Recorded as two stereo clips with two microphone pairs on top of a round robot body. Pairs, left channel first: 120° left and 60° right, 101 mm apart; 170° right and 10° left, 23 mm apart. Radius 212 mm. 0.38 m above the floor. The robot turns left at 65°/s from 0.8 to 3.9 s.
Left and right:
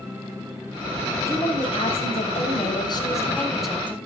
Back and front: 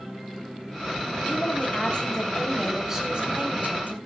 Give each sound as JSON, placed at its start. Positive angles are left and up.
{"t": 1.3, "sound": "a woman speaking", "azimuth_deg": -175, "distance_m": 4.5}